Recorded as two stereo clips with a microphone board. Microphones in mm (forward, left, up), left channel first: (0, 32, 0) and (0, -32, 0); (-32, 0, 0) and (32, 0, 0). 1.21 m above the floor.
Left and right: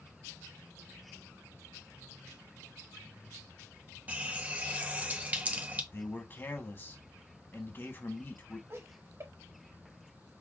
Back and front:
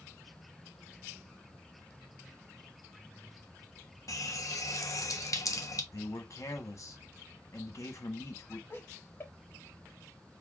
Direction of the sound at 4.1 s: 155° right.